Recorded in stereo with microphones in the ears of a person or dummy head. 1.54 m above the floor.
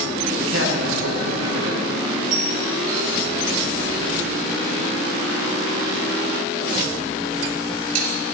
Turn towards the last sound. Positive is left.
turn(degrees=-45)  # may be behind; listen again after turning